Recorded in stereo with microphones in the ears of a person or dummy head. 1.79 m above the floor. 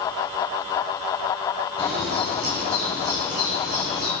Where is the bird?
75° right (ahead or behind), 7 m.